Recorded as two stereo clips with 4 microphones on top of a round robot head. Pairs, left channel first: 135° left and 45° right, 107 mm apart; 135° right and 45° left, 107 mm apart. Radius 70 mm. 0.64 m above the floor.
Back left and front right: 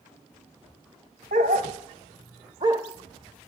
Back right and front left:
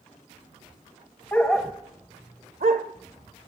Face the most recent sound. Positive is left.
turn(degrees=20)